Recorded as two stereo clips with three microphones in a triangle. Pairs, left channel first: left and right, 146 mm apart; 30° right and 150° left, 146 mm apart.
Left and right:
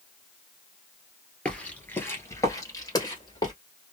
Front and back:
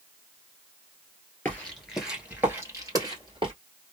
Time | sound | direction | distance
1.4 | footsteps | 20° left | 1.6 m